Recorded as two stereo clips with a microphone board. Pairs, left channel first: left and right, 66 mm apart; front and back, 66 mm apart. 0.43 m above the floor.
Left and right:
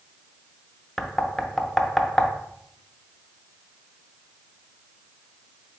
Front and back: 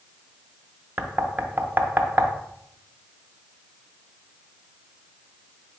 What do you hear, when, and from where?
1.0 s knocking: 170° left, 0.5 m